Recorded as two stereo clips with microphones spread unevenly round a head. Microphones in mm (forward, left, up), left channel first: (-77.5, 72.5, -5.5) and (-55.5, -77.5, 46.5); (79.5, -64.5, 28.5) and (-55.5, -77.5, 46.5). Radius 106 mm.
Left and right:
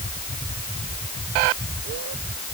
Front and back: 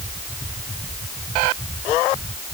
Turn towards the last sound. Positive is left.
No sound to turn to.